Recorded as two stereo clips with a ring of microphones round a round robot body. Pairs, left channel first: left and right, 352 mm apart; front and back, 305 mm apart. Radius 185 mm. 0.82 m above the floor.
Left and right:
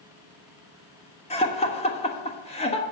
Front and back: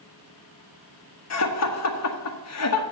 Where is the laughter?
20° left, 1.4 m.